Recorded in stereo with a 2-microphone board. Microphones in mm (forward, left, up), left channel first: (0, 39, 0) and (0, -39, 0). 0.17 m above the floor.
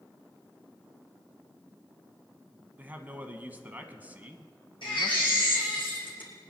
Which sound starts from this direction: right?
A man speaking, at 2.8 s.